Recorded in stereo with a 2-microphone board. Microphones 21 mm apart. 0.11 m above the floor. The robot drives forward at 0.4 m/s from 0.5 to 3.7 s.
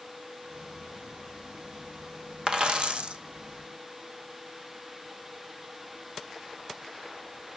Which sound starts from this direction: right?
A dropped coin, at 2.5 s.